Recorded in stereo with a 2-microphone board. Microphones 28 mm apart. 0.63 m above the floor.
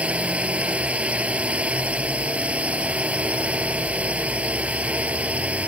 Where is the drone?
45° right (ahead or behind); by 5.7 s 50° right (ahead or behind).